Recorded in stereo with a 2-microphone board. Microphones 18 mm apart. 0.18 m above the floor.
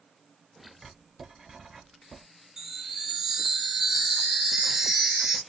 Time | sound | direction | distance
0.8 | writing | 20° right (ahead or behind) | 1.4 m
2.6 | a chime | 25° right (ahead or behind) | 1.3 m